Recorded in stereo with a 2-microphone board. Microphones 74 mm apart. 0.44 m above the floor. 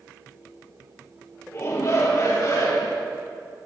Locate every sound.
1.5 s a shout: 45° left (ahead or behind), 1.9 m; by 3.0 s 60° left (ahead or behind), 2.5 m